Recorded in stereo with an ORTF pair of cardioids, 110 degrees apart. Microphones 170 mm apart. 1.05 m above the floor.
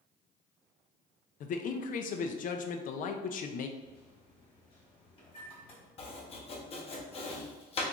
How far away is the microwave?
About 1.5 m.